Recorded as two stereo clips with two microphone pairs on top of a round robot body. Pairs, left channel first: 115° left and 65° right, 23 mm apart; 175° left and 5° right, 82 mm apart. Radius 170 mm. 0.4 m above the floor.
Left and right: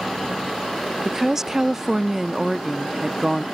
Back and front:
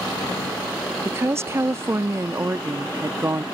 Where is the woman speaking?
25° right.